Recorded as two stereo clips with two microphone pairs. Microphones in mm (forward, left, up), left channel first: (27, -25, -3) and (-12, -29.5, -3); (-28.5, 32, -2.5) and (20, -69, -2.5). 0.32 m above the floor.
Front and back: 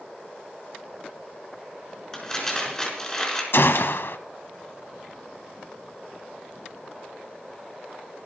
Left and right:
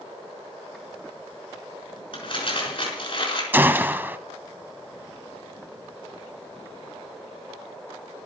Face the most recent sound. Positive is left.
turn(degrees=5)